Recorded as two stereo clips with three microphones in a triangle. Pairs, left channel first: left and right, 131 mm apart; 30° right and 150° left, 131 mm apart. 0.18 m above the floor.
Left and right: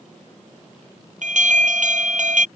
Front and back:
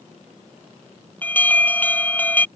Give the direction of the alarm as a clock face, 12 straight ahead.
4 o'clock.